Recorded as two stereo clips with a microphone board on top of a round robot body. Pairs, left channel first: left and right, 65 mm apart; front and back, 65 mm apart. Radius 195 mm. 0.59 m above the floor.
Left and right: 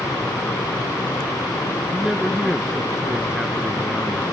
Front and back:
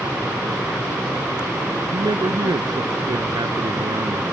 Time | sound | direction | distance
1.9 | a man speaking | 175° right | ?